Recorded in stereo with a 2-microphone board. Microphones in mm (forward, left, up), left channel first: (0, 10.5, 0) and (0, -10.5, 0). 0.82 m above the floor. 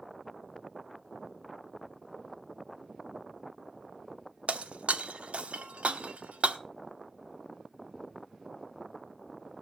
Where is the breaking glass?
85° right, 1.0 m.